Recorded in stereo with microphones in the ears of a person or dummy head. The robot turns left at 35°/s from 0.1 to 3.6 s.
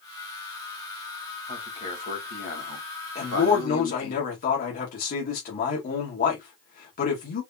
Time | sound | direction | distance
1.5 | a man speaking | 160° left | 2.5 m
3.1 | a man speaking | 30° left (ahead or behind) | 1.8 m